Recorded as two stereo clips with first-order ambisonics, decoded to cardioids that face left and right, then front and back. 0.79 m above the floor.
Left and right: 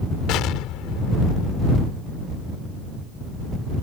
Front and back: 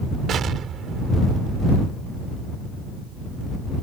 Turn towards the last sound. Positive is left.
turn(degrees=125)